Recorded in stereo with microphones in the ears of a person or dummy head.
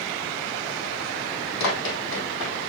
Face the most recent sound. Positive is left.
turn(degrees=65)  # may be behind; listen again after turning